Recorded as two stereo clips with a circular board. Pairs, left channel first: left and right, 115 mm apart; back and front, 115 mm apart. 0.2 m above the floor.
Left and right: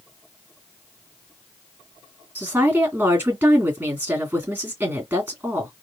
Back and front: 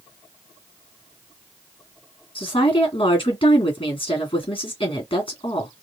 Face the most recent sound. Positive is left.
turn(degrees=-160)